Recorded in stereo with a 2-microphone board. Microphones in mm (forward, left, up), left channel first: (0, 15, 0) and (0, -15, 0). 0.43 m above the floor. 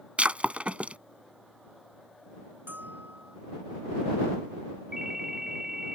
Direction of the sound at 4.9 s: 15° right (ahead or behind).